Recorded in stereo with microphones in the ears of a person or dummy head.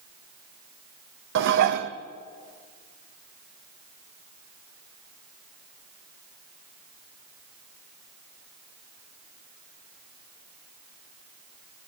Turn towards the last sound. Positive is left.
turn(degrees=-65)  # may be behind; listen again after turning